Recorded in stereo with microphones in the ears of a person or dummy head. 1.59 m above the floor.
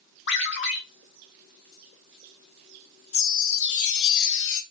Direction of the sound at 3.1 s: 70° left (ahead or behind).